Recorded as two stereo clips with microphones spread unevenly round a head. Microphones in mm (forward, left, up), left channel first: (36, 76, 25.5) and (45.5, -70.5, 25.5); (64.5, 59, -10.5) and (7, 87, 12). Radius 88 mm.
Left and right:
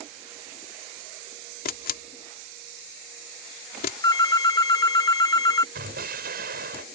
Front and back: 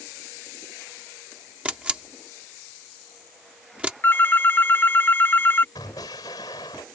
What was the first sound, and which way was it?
A camera shutter, 80° left.